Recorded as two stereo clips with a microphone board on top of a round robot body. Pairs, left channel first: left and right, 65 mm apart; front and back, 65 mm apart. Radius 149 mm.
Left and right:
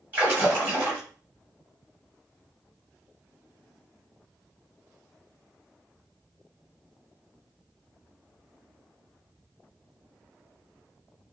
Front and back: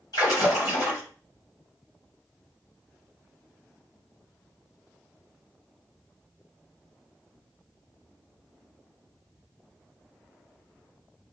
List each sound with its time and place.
0.1 s a splash: 25° right, 1.8 m